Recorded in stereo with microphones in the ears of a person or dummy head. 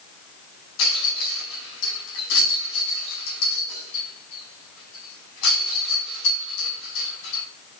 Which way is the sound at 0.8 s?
80° left.